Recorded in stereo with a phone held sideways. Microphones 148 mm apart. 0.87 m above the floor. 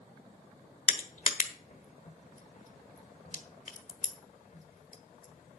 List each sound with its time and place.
0.9 s crushing: 60° left (ahead or behind), 1.4 m